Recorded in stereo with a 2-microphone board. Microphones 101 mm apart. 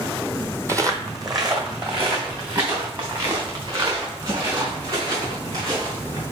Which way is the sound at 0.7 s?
30° right (ahead or behind).